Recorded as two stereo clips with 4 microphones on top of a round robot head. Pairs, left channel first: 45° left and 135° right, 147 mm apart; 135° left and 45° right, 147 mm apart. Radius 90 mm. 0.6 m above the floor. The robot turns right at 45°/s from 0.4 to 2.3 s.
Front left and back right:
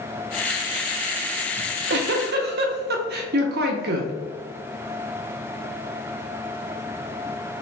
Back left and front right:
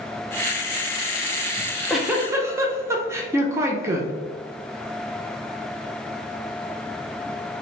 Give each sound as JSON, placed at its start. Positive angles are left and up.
{"t": 1.6, "sound": "a giggle", "azimuth_deg": -150, "distance_m": 0.5}